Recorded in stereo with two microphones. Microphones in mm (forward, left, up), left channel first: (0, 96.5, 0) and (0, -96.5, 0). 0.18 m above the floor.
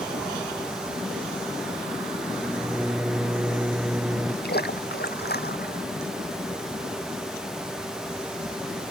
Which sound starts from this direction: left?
A splash, at 4.4 s.